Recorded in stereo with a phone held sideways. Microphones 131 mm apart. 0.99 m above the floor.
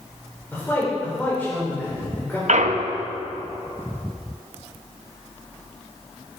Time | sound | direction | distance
0.5 | a man speaking | 15° left (ahead or behind) | 3 m
2.5 | a clunk | 75° right (ahead or behind) | 0.7 m